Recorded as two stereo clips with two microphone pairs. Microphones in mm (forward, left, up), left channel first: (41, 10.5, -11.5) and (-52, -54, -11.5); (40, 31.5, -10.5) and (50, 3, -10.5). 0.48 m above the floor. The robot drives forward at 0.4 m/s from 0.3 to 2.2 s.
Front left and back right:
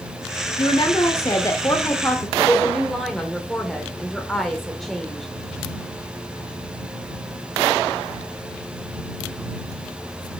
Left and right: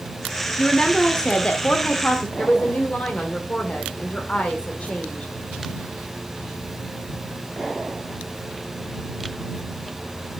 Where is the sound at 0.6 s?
50° left, 1.2 m; by 2.3 s 100° left, 1.1 m.